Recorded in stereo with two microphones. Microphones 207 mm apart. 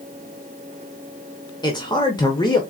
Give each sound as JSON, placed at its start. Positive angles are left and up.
{"t": 1.6, "sound": "a man speaking", "side_deg": 20, "distance_m": 0.9}